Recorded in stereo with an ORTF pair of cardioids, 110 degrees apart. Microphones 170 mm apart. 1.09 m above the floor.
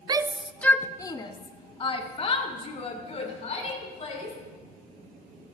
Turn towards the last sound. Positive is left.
turn(degrees=40)